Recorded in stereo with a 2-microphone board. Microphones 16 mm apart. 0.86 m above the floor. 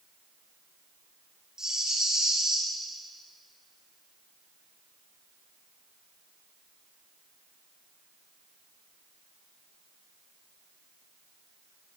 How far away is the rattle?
About 7 m.